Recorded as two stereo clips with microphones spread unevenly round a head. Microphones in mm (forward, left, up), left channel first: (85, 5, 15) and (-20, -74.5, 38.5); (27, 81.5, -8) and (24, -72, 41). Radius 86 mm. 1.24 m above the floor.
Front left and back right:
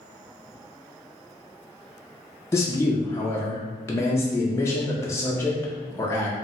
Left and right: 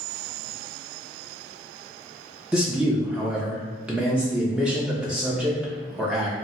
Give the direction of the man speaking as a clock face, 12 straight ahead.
12 o'clock.